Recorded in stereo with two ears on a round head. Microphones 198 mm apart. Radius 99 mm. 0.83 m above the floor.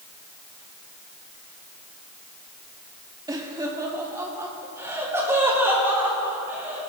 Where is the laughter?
20° right (ahead or behind), 2.0 m; by 6.9 s 10° right (ahead or behind), 5 m.